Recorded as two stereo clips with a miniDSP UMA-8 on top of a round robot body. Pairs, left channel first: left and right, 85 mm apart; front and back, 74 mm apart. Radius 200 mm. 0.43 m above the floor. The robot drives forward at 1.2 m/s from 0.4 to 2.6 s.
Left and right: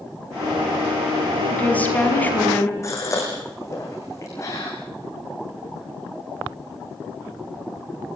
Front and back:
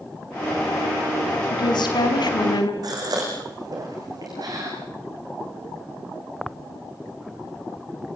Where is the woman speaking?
15° left, 6 m; by 2.7 s 20° left, 4.5 m.